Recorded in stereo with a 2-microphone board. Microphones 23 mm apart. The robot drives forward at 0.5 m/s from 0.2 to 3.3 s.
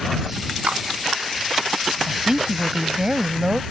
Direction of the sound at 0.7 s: 85° right.